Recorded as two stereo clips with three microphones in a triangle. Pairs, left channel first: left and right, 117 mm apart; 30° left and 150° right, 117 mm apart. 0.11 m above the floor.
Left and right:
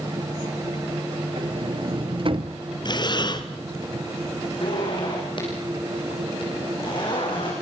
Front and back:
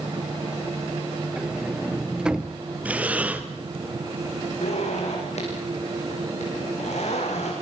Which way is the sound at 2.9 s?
135° left.